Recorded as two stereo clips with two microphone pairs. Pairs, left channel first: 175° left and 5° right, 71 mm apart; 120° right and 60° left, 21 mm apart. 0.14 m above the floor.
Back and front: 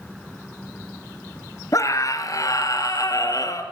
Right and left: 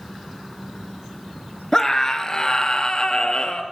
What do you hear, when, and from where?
1.7 s a scream: 175° right, 2 m; by 3.6 s 160° right, 3 m